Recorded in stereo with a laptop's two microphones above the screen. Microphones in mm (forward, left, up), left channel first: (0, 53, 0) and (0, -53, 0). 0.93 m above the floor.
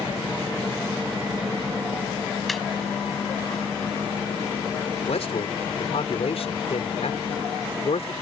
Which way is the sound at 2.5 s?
Centre (ahead or behind).